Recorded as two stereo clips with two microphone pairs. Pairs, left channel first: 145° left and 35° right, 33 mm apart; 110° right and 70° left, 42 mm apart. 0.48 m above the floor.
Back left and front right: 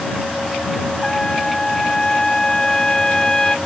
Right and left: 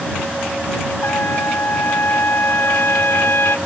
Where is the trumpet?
140° right.